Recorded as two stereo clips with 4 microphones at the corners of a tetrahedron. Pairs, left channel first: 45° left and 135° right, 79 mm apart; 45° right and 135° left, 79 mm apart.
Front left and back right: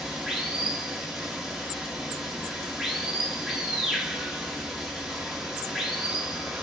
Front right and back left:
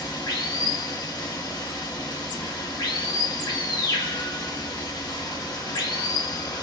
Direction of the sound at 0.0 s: 50° right.